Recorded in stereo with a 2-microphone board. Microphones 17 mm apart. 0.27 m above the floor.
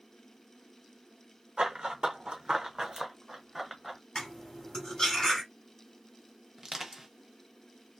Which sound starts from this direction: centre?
Crushing, at 6.6 s.